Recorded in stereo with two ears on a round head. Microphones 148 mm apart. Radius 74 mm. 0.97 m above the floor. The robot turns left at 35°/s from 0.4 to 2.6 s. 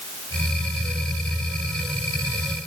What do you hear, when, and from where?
Only background noise.